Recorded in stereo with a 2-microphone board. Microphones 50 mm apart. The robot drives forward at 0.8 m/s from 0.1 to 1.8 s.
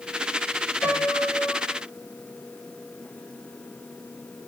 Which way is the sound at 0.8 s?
50° left (ahead or behind).